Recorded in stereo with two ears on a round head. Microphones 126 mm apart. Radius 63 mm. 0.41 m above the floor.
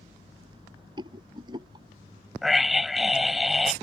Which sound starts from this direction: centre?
A scream, at 2.4 s.